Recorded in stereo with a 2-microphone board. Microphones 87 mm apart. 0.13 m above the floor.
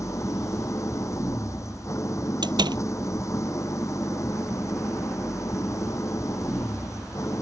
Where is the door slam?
65° right (ahead or behind).